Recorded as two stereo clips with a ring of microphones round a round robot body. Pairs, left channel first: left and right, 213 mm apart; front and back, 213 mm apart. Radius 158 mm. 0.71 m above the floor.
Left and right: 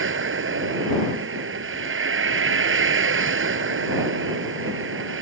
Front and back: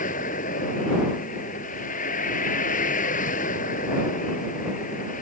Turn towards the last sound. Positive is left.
turn(degrees=-65)